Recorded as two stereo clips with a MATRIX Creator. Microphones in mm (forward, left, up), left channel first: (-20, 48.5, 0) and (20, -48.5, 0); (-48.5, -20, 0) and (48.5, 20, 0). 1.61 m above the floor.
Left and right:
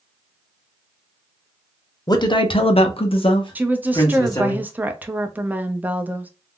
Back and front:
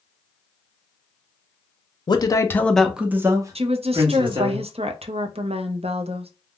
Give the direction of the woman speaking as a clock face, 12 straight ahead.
12 o'clock.